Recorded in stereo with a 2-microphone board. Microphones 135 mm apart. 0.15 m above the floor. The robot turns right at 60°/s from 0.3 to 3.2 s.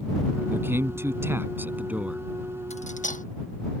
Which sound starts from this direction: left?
Cutlery clinking, at 2.7 s.